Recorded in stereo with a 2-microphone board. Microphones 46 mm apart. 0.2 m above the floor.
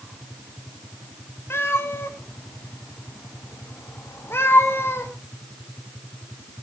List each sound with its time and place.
1.5 s a cat meowing: 60° left (ahead or behind), 4 m